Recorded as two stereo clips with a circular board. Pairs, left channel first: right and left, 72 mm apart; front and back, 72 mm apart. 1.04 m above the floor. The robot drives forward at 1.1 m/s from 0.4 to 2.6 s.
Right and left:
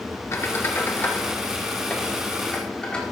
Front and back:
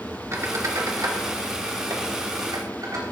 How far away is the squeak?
About 1.4 m.